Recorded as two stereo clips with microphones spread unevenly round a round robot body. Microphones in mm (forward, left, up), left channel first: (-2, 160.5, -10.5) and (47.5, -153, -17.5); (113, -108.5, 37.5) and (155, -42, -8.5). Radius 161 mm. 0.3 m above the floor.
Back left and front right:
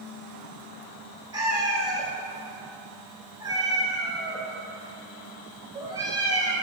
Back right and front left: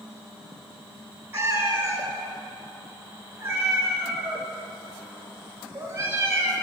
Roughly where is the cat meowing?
Ahead.